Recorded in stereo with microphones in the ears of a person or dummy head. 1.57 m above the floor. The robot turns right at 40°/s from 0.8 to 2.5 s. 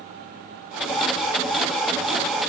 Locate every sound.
Only background noise.